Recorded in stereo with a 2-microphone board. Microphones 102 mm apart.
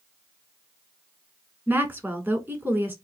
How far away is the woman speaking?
About 1.1 m.